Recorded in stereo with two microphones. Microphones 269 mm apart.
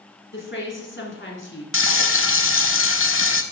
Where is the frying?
50° left (ahead or behind), 0.7 m.